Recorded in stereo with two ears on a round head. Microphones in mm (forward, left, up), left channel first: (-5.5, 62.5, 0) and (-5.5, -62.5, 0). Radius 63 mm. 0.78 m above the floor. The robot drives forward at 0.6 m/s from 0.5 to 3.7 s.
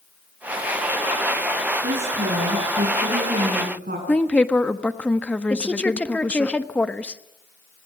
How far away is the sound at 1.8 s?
About 6.5 m.